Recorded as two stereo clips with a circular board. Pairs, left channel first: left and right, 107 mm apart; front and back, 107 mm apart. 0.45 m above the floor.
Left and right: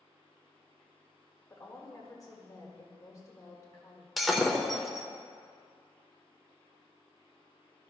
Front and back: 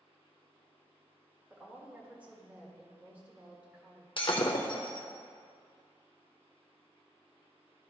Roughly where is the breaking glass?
Ahead.